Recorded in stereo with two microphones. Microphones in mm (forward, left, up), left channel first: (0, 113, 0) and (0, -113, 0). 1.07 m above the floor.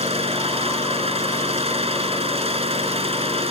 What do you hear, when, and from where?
0.0 s an engine running: 25° right (ahead or behind)